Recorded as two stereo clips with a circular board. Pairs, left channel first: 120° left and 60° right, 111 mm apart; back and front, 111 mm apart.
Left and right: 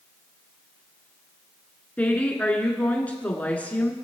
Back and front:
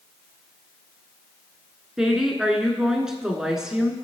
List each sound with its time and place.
2.0 s a woman speaking: 75° left, 1.6 m